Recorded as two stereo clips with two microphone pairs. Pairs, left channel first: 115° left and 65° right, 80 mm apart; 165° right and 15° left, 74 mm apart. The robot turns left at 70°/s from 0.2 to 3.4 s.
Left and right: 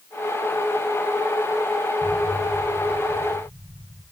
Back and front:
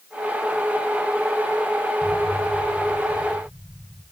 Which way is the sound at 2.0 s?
40° left.